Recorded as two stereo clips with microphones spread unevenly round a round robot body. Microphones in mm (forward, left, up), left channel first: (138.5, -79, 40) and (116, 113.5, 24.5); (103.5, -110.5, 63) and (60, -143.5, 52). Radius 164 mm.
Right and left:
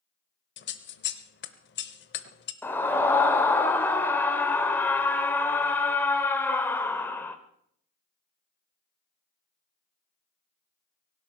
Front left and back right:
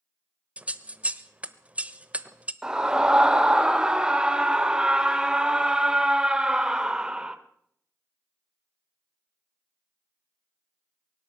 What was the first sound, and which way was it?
Scissors, 90° right.